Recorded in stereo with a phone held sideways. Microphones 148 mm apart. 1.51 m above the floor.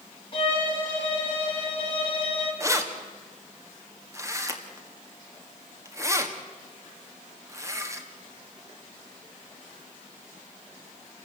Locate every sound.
0.3 s a violin: 35° left (ahead or behind), 5.5 m
2.6 s keys jangling: 20° right (ahead or behind), 1.7 m